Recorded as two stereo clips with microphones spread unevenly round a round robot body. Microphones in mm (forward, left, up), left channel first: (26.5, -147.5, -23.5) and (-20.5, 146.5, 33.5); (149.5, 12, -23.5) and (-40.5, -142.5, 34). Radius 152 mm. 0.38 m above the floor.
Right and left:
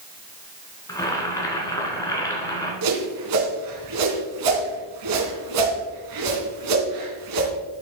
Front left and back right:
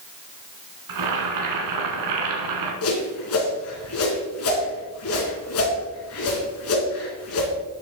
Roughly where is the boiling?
Behind.